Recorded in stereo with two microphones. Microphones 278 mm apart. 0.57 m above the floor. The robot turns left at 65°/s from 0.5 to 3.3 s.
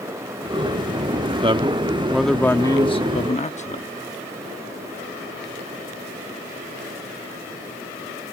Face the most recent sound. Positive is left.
turn(degrees=25)  # may be behind; listen again after turning